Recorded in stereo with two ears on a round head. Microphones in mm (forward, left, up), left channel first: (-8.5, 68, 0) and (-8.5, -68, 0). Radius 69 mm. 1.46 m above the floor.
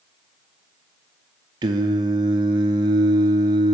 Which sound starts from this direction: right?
Singing, at 1.6 s.